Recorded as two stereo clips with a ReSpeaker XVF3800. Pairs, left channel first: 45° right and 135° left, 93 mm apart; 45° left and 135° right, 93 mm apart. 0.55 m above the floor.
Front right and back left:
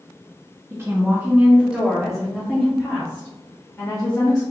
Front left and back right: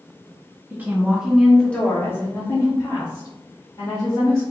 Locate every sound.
0.7 s a woman speaking: 170° left, 1.4 m; by 4.4 s 20° left, 2.5 m